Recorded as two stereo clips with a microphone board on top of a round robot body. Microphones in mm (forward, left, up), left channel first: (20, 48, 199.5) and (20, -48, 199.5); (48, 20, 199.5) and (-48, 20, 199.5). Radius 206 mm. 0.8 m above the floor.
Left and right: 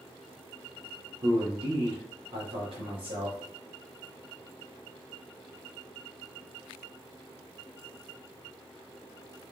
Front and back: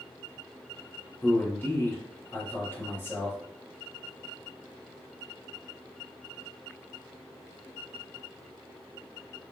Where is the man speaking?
70° right, 2 m.